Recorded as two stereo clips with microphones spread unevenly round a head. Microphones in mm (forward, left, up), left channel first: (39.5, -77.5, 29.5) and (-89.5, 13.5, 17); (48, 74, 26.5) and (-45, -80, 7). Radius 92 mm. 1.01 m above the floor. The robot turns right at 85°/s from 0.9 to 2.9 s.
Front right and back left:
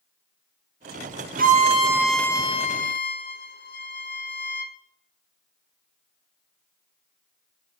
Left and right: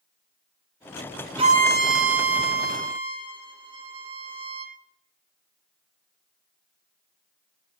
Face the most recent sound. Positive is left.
turn(degrees=-55)